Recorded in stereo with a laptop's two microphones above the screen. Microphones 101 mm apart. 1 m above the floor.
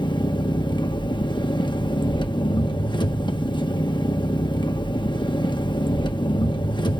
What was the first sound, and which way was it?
An engine running, 50° left (ahead or behind).